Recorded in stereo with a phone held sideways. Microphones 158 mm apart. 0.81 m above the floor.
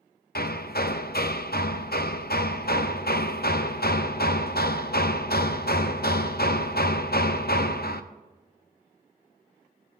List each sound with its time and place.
0.3 s hammering: 80° left, 0.5 m